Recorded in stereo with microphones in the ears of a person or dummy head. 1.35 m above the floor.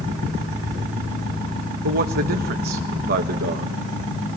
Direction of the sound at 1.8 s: 45° right (ahead or behind).